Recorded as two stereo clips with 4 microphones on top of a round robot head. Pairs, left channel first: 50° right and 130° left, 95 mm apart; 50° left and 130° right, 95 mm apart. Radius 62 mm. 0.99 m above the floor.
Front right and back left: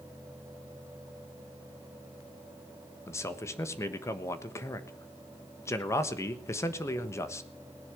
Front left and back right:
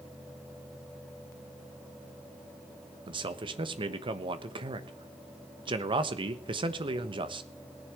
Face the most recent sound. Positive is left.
turn(degrees=-110)